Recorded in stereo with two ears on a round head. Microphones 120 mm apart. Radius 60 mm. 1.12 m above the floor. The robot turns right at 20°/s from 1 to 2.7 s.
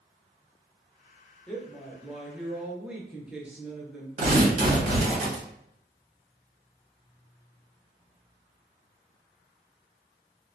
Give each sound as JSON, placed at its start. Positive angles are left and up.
{"t": 1.5, "sound": "a woman speaking", "side_deg": 5, "distance_m": 0.5}
{"t": 4.2, "sound": "tearing paper", "side_deg": -55, "distance_m": 1.2}